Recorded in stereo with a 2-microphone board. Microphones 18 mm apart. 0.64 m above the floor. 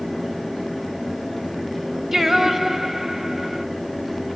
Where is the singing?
25° right (ahead or behind), 1.2 m.